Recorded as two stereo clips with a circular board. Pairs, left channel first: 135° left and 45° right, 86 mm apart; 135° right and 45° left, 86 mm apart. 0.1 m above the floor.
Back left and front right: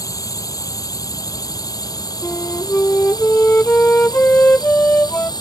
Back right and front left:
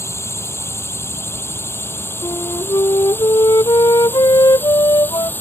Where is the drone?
170° left; by 5.4 s 160° left.